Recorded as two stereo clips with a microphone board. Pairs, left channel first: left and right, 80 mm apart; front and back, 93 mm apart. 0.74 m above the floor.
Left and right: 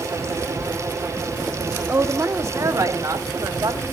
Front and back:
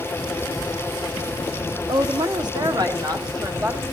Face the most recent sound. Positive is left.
turn(degrees=-135)